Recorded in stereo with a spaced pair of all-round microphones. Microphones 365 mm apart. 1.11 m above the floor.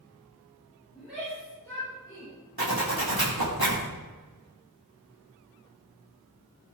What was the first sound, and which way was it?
A shout, 5° right (ahead or behind).